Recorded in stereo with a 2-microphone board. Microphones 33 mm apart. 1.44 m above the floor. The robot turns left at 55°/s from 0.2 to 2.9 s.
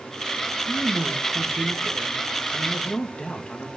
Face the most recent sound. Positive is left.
turn(degrees=145)